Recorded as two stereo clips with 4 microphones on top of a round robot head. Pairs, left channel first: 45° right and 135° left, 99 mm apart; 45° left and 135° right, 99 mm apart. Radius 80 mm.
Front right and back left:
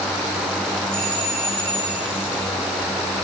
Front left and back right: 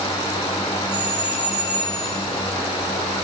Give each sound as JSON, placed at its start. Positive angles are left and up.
{"t": 0.9, "sound": "a doorbell", "azimuth_deg": 170, "distance_m": 5.5}